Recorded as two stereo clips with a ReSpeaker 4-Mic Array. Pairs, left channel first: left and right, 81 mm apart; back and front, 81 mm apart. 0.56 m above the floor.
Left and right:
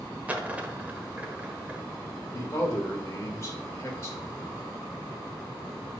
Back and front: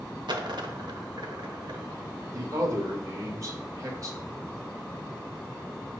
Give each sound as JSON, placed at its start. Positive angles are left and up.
{"t": 0.3, "sound": "a dropped coin", "azimuth_deg": -20, "distance_m": 0.9}
{"t": 2.3, "sound": "a man speaking", "azimuth_deg": 40, "distance_m": 1.9}